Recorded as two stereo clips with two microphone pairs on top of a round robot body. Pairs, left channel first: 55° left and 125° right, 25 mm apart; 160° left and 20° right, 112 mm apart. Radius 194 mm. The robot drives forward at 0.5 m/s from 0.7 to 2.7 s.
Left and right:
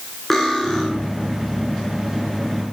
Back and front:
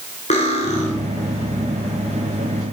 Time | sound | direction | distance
0.3 | cutlery clinking | 140° left | 2.5 m